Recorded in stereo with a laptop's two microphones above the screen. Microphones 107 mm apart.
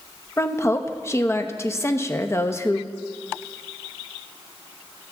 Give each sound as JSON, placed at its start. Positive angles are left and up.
{"t": 0.4, "sound": "a woman speaking", "side_deg": 25, "distance_m": 0.8}